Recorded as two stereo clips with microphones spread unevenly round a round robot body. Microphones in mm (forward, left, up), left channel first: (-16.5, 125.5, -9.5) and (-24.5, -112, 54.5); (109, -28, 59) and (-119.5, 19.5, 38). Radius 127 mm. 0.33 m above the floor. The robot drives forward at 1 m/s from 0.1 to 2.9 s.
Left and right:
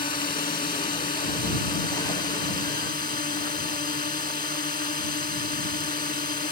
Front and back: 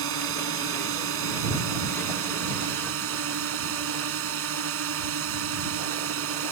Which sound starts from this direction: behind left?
A drone, at 0.0 s.